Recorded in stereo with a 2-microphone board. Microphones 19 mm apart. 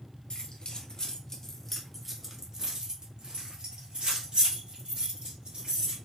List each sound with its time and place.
0.3 s keys jangling: 50° left (ahead or behind), 1.4 m; by 6.0 s 70° right (ahead or behind), 3 m